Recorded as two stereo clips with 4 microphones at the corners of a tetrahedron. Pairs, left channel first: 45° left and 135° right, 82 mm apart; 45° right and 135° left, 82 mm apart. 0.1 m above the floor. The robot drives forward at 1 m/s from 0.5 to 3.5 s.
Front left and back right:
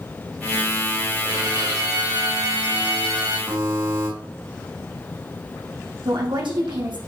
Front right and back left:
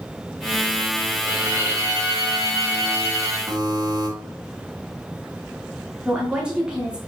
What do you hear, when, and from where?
1.2 s a violin: 170° right, 4.5 m; by 3.4 s 175° right, 6.5 m
3.5 s a buzzer: 175° left, 5 m
6.0 s a woman speaking: 145° right, 5.5 m